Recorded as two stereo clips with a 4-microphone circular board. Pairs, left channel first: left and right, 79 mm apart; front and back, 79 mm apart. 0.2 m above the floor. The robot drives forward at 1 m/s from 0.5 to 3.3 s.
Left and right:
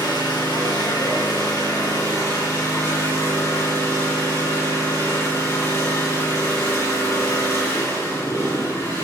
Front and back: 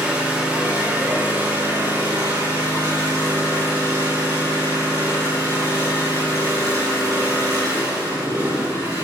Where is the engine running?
105° left, 3.5 m; by 9.0 s 140° left, 5 m.